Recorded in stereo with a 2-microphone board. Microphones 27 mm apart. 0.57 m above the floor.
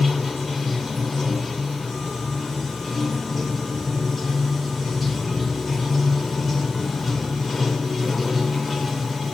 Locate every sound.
0.0 s running water: centre (ahead or behind), 1.0 m